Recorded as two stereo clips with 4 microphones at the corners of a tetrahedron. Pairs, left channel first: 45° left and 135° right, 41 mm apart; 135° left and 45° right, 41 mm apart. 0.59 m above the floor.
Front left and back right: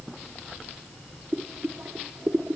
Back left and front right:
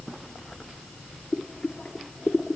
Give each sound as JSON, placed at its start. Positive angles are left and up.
{"t": 1.3, "sound": "boiling", "azimuth_deg": -160, "distance_m": 0.7}